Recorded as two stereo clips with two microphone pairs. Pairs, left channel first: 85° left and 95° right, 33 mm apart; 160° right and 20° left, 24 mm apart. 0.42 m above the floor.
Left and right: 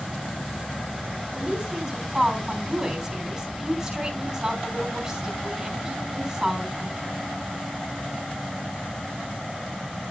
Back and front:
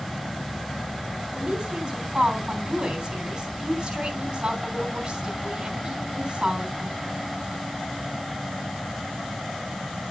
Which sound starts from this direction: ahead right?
A woman speaking, at 1.3 s.